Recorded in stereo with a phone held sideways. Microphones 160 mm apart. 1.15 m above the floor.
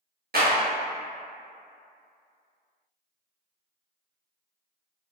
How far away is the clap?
About 1.0 m.